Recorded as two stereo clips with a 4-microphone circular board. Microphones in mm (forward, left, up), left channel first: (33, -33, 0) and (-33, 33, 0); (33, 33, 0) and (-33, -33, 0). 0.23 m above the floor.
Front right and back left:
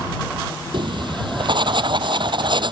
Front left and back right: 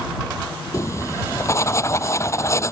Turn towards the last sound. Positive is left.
turn(degrees=105)